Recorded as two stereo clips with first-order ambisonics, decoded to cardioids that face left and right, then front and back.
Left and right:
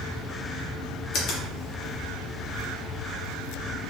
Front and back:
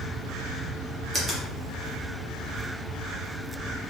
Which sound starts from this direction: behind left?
A finger snap, at 1.1 s.